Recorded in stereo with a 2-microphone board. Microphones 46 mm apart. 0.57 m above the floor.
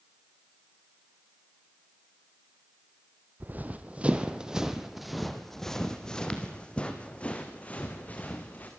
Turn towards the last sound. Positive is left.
turn(degrees=35)  # may be behind; listen again after turning